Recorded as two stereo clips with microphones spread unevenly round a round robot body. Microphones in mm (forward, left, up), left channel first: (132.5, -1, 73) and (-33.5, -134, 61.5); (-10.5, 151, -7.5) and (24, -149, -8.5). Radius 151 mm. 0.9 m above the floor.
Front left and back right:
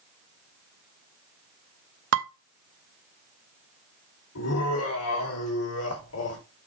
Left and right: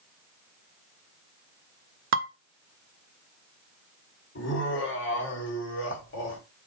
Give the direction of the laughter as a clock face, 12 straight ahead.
11 o'clock.